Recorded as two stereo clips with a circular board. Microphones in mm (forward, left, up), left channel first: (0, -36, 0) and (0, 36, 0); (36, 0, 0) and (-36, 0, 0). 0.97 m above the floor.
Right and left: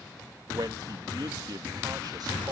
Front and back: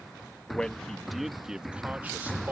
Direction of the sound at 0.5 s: 75° left.